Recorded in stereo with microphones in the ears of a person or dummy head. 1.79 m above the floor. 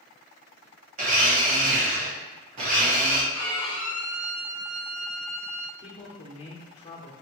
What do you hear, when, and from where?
1.0 s a blender: 40° right (ahead or behind), 0.9 m
3.3 s a violin: 20° left (ahead or behind), 0.8 m
5.8 s a man speaking: 30° left (ahead or behind), 0.9 m